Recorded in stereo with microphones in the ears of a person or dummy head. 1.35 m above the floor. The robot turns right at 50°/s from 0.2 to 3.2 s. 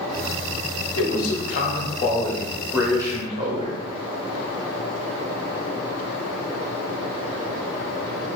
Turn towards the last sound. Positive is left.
turn(degrees=-150)